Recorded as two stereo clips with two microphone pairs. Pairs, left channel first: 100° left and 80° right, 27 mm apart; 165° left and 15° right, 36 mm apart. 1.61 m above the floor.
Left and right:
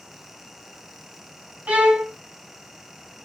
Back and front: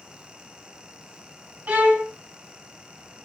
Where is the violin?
50° right, 0.8 m.